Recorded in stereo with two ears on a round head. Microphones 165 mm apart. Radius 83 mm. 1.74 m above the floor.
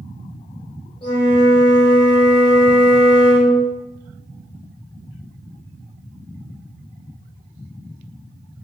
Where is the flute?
30° left (ahead or behind), 1.6 m.